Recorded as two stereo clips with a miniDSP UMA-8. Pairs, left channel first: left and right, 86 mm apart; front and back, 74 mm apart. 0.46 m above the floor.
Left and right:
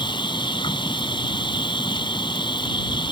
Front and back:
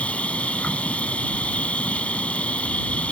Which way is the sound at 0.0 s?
70° left.